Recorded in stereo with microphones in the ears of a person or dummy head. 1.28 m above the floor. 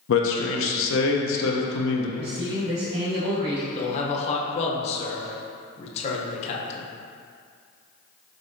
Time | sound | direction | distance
0.1 | a man speaking | 75° left (ahead or behind) | 0.7 m
2.2 | a man speaking | 70° right (ahead or behind) | 1.4 m
3.8 | a man speaking | 35° left (ahead or behind) | 0.8 m